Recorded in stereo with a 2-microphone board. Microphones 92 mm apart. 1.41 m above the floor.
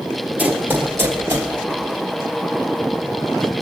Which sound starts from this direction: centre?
Running footsteps, at 0.4 s.